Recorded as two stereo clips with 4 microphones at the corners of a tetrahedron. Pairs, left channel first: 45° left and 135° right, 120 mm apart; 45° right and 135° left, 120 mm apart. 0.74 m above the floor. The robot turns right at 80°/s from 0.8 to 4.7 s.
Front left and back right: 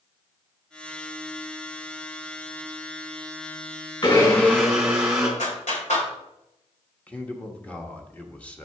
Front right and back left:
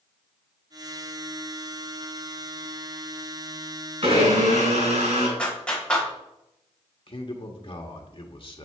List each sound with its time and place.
4.0 s a blender: 90° left, 3.5 m; by 5.3 s 145° left, 3.5 m
5.4 s a clap: 35° left, 3 m
7.1 s a man speaking: 30° right, 1.3 m